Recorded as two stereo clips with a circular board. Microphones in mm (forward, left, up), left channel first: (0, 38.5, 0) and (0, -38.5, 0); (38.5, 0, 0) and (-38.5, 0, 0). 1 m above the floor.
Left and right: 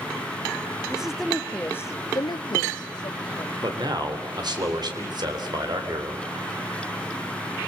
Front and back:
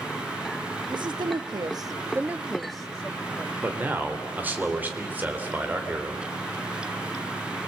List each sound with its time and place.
0.9 s a woman speaking: 170° right, 1.5 m; by 3.5 s 70° left, 2 m
3.6 s a man speaking: 115° right, 3.5 m